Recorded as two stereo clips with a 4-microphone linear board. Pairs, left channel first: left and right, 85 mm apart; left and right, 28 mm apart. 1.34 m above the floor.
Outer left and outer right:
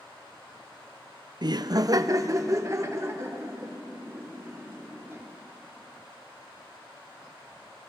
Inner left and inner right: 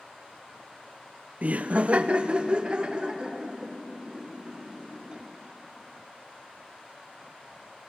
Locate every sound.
1.4 s laughter: 50° right (ahead or behind), 0.5 m; by 5.2 s 30° right (ahead or behind), 4 m